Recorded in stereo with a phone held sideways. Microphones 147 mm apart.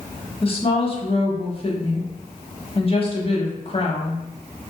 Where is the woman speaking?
40° left (ahead or behind), 1.0 m.